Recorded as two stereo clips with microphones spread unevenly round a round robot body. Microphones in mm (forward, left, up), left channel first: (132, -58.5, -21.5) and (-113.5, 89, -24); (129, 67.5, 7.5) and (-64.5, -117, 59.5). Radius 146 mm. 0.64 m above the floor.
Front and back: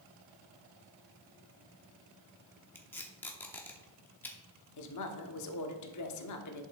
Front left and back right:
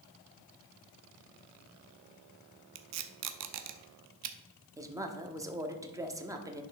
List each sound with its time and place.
2.8 s tape being pulled: 115° right, 0.8 m
4.8 s a woman speaking: 55° right, 1.1 m